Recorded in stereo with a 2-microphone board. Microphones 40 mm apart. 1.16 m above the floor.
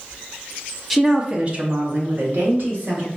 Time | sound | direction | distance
0.9 | a woman speaking | 5° right (ahead or behind) | 0.7 m